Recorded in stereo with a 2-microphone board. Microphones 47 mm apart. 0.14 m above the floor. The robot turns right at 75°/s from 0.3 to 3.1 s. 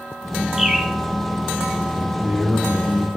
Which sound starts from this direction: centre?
A bird, at 0.6 s.